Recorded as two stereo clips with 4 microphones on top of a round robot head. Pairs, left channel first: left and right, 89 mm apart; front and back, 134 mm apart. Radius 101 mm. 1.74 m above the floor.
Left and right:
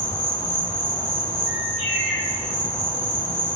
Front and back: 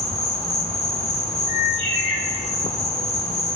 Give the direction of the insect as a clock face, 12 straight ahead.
9 o'clock.